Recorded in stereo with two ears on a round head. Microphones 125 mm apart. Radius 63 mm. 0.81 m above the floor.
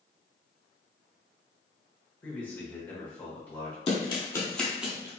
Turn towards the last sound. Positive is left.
turn(degrees=-20)  # may be behind; listen again after turning